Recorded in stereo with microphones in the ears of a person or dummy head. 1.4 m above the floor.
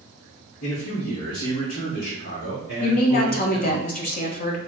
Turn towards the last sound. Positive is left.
turn(degrees=45)  # may be behind; listen again after turning